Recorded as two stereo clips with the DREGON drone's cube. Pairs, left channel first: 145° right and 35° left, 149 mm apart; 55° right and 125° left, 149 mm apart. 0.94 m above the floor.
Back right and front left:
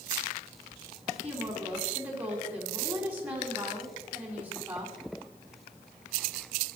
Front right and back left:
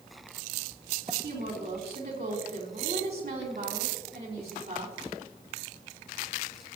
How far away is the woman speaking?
About 3 m.